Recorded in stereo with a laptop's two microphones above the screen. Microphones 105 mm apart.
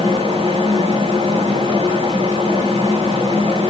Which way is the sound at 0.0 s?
85° right.